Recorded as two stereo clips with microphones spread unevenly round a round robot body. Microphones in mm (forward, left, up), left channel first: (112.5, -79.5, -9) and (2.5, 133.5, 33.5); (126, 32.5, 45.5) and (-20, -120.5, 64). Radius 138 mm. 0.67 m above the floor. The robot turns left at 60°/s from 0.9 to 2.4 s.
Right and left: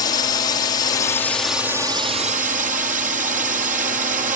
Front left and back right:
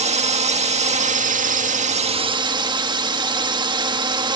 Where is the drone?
100° right; by 4.4 s 170° left.